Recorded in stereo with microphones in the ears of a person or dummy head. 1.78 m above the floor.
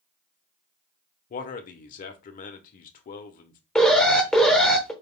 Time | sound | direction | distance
1.3 | a man speaking | 45° left (ahead or behind) | 0.9 m
3.8 | an alarm | centre (ahead or behind) | 0.9 m